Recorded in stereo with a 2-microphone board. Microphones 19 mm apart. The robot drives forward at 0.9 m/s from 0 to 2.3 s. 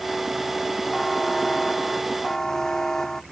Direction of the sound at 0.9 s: 20° left (ahead or behind).